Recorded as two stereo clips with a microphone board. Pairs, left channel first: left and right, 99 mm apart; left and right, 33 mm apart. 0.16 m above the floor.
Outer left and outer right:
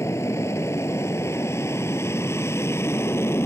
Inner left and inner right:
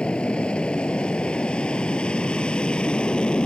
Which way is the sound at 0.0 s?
25° left (ahead or behind).